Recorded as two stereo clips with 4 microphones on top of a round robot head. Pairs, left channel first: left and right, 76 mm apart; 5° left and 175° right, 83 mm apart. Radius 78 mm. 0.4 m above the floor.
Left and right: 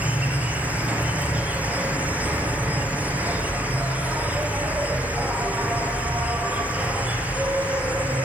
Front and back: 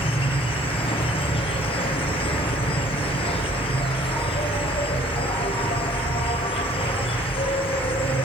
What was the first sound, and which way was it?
An insect, 20° right.